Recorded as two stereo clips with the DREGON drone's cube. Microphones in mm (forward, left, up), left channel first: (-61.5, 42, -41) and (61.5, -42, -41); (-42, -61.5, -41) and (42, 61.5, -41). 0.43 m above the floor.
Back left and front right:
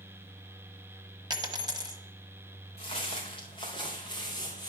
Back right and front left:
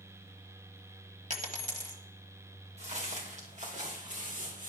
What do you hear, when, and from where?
1.3 s a dropped coin: 25° left, 1.1 m
2.8 s footsteps: 100° left, 2.5 m; by 4.7 s 85° left, 4 m